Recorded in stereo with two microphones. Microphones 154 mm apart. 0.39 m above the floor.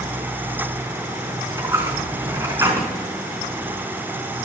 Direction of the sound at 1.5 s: 20° right (ahead or behind).